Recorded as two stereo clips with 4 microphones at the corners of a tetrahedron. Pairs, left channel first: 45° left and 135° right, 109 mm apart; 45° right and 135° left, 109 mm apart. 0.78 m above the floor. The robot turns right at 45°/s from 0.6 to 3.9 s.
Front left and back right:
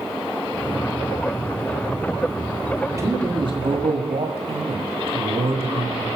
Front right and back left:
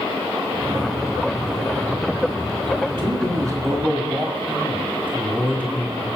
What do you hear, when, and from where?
2.9 s a man speaking: 160° left, 1.7 m; by 6.1 s 150° right, 1.7 m